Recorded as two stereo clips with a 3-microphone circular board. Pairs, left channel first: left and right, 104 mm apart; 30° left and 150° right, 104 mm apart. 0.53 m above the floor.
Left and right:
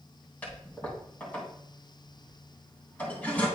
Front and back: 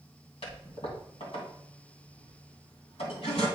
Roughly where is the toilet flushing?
Ahead.